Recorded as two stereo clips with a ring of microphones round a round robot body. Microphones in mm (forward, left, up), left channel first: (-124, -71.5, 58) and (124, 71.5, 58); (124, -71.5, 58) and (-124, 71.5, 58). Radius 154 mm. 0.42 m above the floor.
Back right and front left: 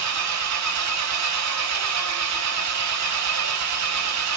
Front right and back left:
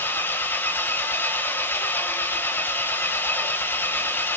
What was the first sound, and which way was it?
An engine running, 55° left.